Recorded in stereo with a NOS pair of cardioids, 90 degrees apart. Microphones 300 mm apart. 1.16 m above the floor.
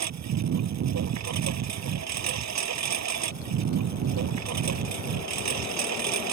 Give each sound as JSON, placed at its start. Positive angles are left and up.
{"t": 0.0, "sound": "a lawn mower", "azimuth_deg": -60}